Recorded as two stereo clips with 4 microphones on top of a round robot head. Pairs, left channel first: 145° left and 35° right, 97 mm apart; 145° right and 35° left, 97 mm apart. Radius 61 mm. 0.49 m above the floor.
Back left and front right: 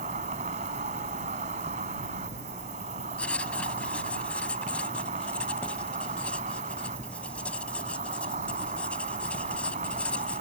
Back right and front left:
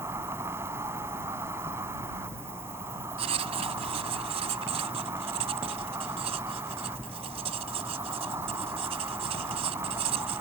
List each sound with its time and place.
0.0 s an insect: 30° right
3.2 s writing: 65° left